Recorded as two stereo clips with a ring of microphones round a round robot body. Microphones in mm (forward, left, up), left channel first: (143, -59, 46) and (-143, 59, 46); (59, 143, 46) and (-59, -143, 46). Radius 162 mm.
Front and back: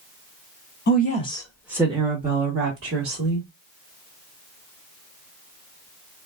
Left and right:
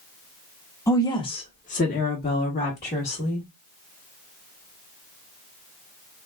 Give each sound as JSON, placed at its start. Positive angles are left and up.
{"t": 0.9, "sound": "a woman speaking", "azimuth_deg": -5, "distance_m": 0.9}